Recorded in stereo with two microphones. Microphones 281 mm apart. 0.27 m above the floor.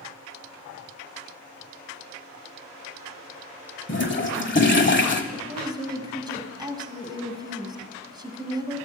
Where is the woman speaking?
15° right (ahead or behind), 1.7 m.